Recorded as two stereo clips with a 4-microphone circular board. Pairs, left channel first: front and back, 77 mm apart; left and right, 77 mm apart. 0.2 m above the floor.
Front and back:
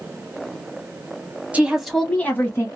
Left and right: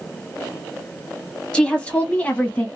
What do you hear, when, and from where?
1.5 s a woman speaking: 150° left, 1.0 m; by 2.7 s 25° left, 1.2 m